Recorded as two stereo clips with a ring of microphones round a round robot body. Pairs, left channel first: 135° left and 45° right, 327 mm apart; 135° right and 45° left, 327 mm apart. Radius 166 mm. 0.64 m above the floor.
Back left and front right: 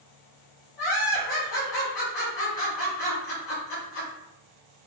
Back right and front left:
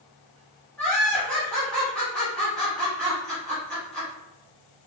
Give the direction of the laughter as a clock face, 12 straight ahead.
7 o'clock.